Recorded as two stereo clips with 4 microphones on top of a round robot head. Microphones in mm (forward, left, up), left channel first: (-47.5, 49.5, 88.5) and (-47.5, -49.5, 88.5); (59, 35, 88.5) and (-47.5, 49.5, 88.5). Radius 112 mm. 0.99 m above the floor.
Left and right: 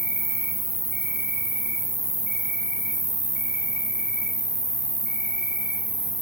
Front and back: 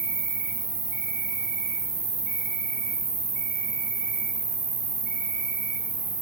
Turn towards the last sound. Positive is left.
turn(degrees=180)